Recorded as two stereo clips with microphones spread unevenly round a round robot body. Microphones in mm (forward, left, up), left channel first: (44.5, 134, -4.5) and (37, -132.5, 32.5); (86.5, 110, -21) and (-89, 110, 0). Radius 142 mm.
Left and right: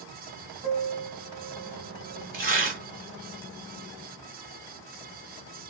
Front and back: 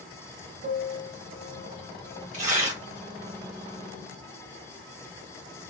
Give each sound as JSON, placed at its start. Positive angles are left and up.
{"t": 0.6, "sound": "a piano", "azimuth_deg": -135, "distance_m": 1.7}
{"t": 2.3, "sound": "tearing paper", "azimuth_deg": -140, "distance_m": 1.3}